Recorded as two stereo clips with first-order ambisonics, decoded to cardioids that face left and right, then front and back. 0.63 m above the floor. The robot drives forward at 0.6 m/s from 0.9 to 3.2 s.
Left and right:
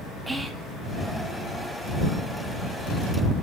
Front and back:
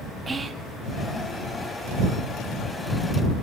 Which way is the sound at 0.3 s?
165° right.